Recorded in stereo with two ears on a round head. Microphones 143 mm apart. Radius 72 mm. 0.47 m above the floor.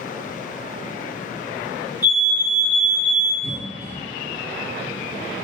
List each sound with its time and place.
2.0 s a fire alarm: 15° right (ahead or behind), 1.8 m
3.4 s a cough: 15° left (ahead or behind), 1.1 m